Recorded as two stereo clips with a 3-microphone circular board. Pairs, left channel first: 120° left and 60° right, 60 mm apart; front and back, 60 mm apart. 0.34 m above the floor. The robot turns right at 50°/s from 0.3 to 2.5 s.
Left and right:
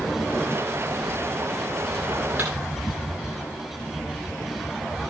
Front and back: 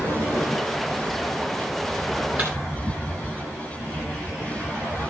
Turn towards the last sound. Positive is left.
turn(degrees=-110)